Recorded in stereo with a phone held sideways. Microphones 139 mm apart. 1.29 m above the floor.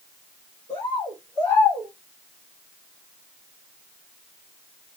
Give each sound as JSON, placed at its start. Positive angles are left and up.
{"t": 0.7, "sound": "a bird", "side_deg": 35, "distance_m": 1.8}